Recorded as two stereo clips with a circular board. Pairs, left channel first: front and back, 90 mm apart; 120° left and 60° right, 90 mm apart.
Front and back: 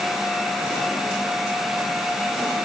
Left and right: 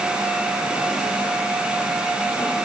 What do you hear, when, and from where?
Only background noise.